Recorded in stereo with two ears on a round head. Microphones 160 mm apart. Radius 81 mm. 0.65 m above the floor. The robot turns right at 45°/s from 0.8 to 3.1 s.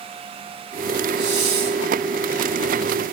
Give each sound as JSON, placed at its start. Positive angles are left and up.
{"t": 1.1, "sound": "a hiss", "side_deg": -70, "distance_m": 2.0}